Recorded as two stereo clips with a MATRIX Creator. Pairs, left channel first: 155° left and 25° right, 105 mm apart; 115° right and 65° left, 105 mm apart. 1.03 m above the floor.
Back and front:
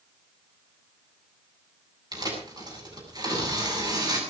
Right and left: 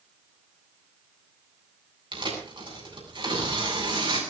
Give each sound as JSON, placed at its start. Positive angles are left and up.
{"t": 2.1, "sound": "tearing paper", "azimuth_deg": 30, "distance_m": 8.0}